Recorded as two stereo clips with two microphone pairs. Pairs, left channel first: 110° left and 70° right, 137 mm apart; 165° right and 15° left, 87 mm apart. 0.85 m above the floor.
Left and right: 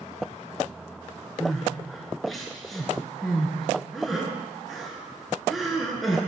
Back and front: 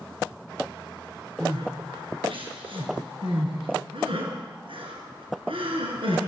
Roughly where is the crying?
Ahead.